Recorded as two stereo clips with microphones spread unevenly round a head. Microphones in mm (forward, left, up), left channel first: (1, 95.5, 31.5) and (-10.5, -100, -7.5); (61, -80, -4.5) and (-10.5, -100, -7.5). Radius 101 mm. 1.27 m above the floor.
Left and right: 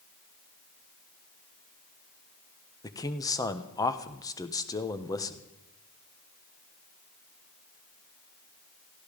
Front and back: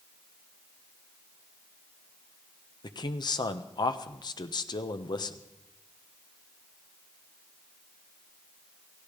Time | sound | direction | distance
2.8 | a man speaking | 10° left | 1.2 m